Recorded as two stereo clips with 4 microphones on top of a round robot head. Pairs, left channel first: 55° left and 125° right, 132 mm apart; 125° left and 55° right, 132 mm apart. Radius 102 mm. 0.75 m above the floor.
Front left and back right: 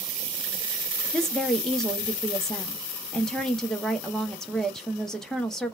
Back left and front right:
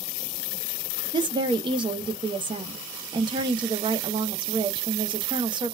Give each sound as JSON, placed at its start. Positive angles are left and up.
{"t": 1.1, "sound": "a woman speaking", "azimuth_deg": -30, "distance_m": 0.6}